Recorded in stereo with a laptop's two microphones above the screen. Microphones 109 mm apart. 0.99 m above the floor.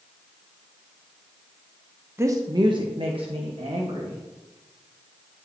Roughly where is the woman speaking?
Right.